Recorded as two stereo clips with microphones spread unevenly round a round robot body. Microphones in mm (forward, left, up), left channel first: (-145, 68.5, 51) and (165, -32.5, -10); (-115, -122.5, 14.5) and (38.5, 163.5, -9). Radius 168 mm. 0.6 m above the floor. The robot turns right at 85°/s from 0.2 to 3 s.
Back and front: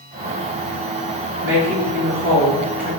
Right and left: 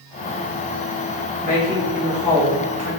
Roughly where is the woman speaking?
Ahead right.